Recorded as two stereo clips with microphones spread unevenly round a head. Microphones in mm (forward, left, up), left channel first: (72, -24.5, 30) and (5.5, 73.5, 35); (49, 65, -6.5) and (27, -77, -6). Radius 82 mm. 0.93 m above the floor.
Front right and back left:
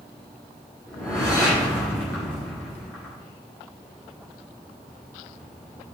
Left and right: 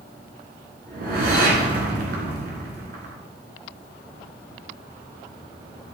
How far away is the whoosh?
About 2.5 m.